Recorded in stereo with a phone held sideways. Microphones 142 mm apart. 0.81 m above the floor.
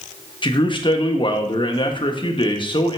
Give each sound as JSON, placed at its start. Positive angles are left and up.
{"t": 0.4, "sound": "a man speaking", "side_deg": 35, "distance_m": 1.0}